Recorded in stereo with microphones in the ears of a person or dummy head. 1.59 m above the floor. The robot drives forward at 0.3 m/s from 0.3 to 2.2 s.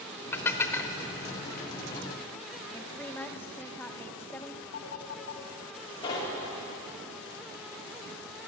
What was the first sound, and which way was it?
Dishes clattering, 10° left (ahead or behind).